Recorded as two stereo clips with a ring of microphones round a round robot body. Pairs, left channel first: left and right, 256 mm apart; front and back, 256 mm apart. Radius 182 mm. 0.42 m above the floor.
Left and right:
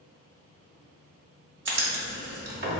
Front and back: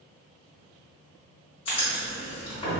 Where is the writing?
65° right, 0.8 m.